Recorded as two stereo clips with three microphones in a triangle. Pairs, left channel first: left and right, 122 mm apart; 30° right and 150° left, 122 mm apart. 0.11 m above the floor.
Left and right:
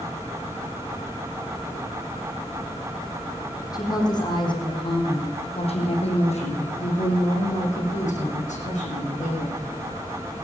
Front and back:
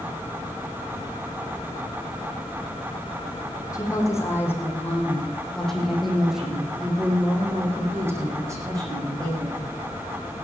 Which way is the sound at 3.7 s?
30° left.